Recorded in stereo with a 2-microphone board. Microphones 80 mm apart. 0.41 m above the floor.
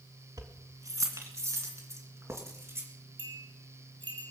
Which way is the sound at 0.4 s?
50° right (ahead or behind).